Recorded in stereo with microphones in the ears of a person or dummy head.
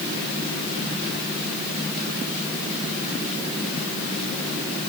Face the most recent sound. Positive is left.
No sound to turn to.